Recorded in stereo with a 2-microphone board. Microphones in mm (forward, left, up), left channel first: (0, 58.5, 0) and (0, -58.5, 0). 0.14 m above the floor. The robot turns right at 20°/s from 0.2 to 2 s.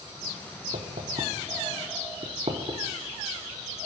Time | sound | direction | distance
0.7 | knocking | 75° right (ahead or behind) | 4 m